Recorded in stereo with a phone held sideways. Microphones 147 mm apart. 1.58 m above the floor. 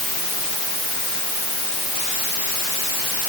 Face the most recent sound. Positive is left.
No sound to turn to.